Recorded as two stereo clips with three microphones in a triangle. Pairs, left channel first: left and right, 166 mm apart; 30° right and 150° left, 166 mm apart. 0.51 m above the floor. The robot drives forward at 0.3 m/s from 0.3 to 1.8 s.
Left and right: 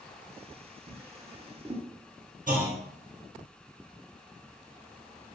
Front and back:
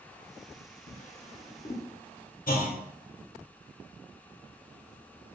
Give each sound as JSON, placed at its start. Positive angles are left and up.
{"t": 0.9, "sound": "a drawer", "azimuth_deg": -25, "distance_m": 0.8}
{"t": 2.5, "sound": "a clunk", "azimuth_deg": -55, "distance_m": 0.7}